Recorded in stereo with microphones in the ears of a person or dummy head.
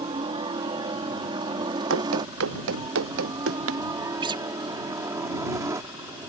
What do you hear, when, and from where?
0.0 s a helicopter: 25° right (ahead or behind); by 6.3 s 10° right (ahead or behind)
1.9 s running footsteps: 80° right; by 3.8 s 85° right
4.2 s a guitar: 25° right (ahead or behind)